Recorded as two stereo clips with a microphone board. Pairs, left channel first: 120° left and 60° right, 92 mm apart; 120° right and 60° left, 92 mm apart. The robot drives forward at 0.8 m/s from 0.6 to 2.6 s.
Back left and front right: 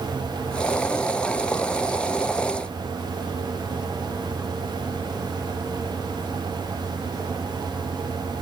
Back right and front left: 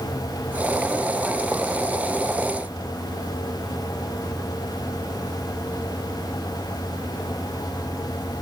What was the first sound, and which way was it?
Only background noise.